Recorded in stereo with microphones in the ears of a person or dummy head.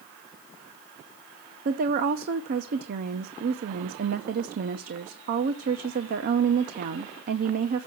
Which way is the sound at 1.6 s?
55° right (ahead or behind).